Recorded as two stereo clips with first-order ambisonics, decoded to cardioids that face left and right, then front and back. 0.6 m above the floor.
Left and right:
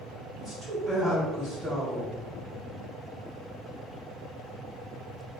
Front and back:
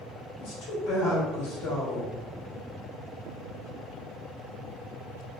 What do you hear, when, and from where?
0.4 s a woman speaking: 15° right, 2.0 m